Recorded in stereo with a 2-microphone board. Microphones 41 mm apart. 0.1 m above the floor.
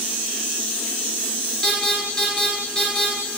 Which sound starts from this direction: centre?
An alarm, at 1.6 s.